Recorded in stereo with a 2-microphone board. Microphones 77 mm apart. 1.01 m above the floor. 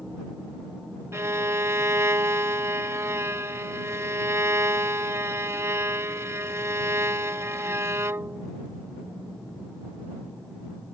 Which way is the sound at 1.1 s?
40° right (ahead or behind).